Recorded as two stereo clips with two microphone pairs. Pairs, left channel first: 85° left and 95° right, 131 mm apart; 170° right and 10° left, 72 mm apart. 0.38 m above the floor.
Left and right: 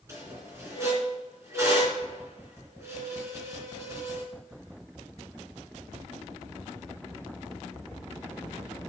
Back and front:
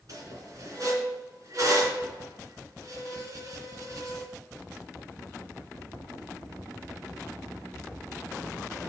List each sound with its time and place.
0.1 s a squeak: 25° right, 3 m